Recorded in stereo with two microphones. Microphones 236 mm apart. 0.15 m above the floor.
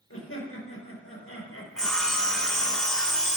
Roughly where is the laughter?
Left.